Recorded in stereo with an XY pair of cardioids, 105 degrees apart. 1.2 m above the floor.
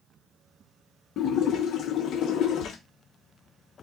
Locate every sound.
1.2 s a splash: 65° left, 0.9 m